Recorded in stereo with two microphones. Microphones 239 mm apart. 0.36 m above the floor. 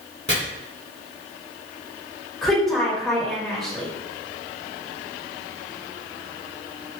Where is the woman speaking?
Centre (ahead or behind), 1.3 m.